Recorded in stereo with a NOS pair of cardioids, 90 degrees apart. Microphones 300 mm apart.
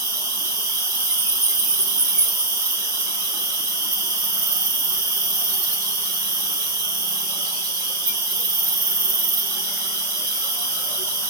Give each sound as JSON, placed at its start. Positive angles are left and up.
{"t": 0.0, "sound": "an insect", "azimuth_deg": -60, "distance_m": 2.0}